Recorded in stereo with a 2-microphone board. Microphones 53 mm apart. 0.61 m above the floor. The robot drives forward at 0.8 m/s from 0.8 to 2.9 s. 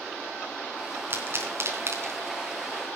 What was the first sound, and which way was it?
A pop, 45° right (ahead or behind).